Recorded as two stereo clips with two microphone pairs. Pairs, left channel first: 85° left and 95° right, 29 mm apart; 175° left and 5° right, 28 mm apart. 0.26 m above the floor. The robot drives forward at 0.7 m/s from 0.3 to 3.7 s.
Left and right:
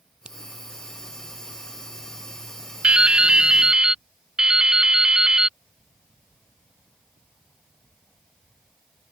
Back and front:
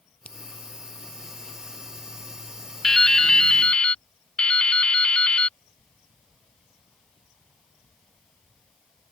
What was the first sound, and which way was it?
A finger snap, 155° right.